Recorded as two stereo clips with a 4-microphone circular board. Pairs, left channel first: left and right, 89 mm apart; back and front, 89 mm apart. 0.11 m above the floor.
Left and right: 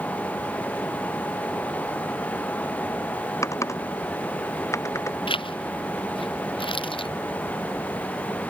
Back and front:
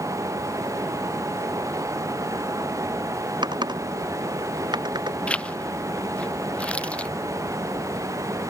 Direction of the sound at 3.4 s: 35° left.